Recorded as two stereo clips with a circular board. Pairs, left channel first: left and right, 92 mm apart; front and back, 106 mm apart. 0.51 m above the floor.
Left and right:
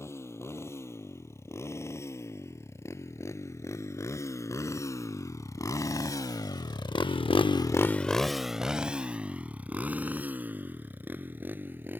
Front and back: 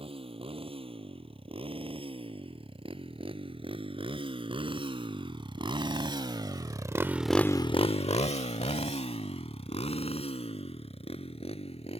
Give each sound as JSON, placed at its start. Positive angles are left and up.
{"t": 0.0, "sound": "a motorcycle", "azimuth_deg": 150}